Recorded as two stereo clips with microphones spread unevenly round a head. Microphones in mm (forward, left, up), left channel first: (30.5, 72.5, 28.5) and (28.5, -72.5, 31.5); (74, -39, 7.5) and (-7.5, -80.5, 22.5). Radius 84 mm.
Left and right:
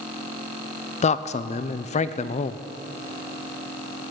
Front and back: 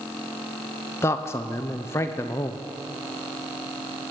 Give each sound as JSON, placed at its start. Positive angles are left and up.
{"t": 1.0, "sound": "a man speaking", "azimuth_deg": 75, "distance_m": 0.6}